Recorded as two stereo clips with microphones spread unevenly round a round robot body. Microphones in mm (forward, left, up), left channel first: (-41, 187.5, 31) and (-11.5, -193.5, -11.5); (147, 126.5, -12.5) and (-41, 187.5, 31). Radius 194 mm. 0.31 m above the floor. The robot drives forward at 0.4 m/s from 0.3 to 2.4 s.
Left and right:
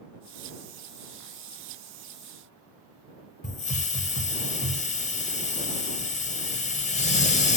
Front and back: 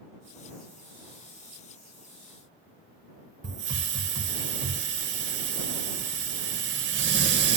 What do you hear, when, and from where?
3.4 s a hiss: 165° left, 0.5 m